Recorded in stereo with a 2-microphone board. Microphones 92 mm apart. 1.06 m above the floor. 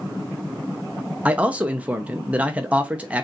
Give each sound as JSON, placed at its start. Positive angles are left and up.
{"t": 1.2, "sound": "a man speaking", "side_deg": -15, "distance_m": 0.7}